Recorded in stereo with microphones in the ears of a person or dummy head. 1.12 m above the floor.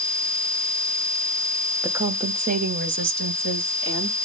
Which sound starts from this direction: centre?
A woman speaking, at 1.8 s.